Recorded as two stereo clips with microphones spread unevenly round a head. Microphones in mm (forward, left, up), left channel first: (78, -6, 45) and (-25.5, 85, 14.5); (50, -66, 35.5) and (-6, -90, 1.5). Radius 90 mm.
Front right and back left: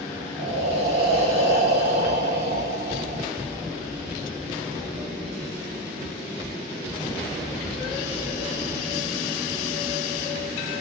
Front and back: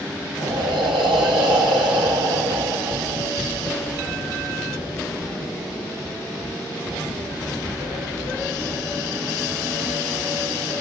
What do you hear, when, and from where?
0.4 s breathing: 160° right, 2.5 m